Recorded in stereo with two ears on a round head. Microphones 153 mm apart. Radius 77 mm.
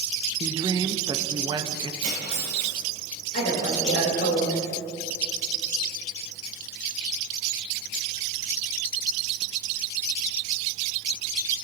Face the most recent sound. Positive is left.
turn(degrees=60)  # may be behind; listen again after turning